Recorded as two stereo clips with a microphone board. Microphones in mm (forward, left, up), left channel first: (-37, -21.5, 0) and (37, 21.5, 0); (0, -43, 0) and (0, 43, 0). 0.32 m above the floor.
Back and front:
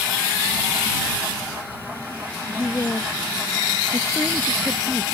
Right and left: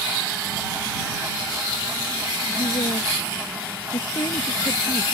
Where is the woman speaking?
95° right; by 5.0 s 70° right.